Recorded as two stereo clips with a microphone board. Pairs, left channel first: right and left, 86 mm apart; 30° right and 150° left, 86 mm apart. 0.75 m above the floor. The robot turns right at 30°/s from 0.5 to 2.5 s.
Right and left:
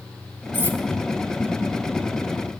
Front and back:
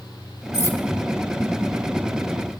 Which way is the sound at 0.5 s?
20° left.